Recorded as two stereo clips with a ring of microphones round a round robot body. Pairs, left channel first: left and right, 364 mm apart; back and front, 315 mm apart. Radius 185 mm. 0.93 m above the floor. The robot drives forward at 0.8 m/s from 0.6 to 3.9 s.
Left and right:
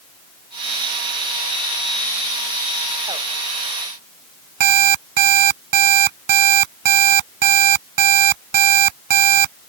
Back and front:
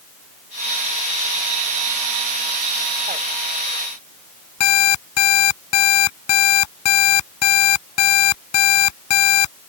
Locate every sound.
4.6 s an alarm clock: 130° right